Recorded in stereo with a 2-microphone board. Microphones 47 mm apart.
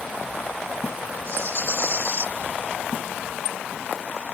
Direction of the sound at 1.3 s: 65° right (ahead or behind).